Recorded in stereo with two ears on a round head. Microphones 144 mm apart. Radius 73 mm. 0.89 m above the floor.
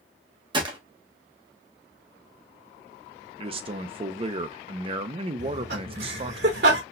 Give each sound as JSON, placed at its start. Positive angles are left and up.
{"t": 0.5, "sound": "a gunshot", "side_deg": -30, "distance_m": 1.0}
{"t": 3.4, "sound": "a man speaking", "side_deg": -35, "distance_m": 0.5}
{"t": 5.4, "sound": "laughter", "side_deg": -70, "distance_m": 2.0}